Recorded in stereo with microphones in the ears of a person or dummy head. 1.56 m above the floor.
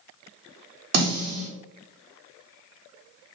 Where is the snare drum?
45° right (ahead or behind), 1.4 m.